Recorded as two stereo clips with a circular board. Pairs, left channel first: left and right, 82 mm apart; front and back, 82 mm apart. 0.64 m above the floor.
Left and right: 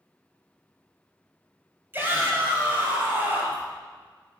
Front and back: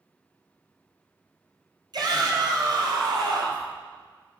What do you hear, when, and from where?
1.9 s a shout: 155° right, 3 m